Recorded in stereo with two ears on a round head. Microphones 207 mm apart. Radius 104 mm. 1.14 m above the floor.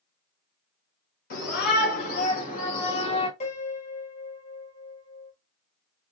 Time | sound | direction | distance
1.3 | a shout | 45° left (ahead or behind) | 3.5 m
3.4 | a piano | 30° left (ahead or behind) | 3 m